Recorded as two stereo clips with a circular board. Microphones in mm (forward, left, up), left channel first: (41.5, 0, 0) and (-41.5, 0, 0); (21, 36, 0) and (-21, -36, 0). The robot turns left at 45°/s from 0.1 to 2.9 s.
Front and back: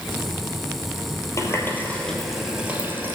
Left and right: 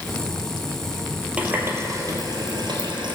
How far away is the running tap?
About 1.8 m.